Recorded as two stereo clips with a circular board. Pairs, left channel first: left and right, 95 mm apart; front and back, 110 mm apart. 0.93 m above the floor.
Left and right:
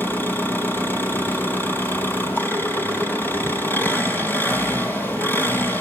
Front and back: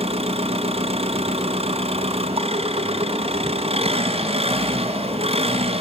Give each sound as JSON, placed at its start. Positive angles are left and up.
{"t": 0.0, "sound": "an engine running", "azimuth_deg": 160, "distance_m": 3.0}